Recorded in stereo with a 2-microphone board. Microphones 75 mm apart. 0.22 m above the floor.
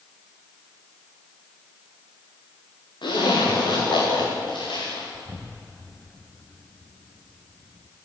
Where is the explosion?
20° left (ahead or behind), 1.2 m.